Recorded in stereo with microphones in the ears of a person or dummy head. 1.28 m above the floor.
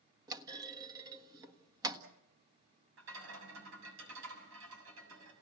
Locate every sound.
0.3 s a clunk: 25° right (ahead or behind), 1.3 m
3.0 s a rattle: 80° right, 7 m